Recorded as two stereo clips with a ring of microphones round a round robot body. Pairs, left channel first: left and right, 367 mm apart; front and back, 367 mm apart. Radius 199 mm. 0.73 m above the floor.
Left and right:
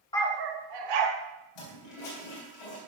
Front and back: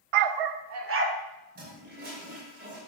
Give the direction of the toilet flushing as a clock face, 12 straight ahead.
8 o'clock.